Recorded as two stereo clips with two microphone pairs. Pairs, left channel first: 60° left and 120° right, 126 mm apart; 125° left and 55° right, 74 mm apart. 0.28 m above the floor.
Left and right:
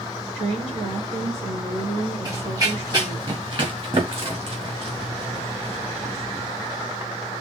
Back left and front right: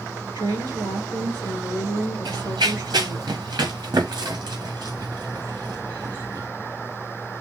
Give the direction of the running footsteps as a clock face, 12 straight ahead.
2 o'clock.